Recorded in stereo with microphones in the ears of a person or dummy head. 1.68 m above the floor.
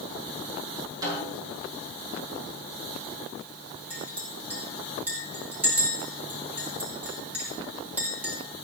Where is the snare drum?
20° right (ahead or behind), 7.5 m.